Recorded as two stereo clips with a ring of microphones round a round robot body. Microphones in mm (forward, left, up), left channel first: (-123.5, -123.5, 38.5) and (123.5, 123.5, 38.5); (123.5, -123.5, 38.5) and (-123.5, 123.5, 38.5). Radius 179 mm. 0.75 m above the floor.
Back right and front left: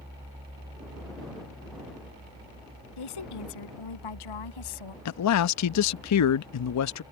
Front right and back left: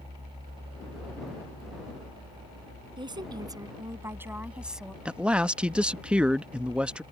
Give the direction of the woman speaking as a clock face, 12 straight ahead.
5 o'clock.